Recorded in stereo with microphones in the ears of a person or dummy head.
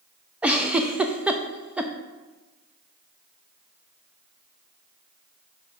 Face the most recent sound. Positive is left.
turn(degrees=-10)  # may be behind; listen again after turning